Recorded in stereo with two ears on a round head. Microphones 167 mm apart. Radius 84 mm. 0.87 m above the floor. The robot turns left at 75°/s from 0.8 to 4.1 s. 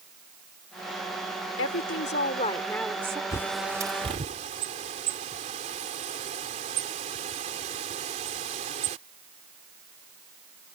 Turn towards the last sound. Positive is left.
turn(degrees=-40)  # may be behind; listen again after turning